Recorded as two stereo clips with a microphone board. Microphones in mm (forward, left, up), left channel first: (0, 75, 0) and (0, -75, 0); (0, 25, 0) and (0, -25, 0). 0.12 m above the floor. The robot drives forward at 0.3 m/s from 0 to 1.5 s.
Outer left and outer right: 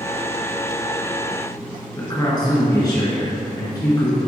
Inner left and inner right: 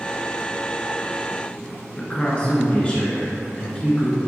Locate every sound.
2.0 s a man speaking: 25° left (ahead or behind), 1.3 m